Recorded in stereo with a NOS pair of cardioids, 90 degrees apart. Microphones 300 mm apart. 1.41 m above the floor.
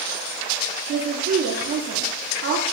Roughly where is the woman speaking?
Ahead right.